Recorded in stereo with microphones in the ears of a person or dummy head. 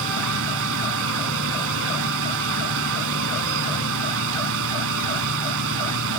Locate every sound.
0.0 s a fan: 70° right (ahead or behind)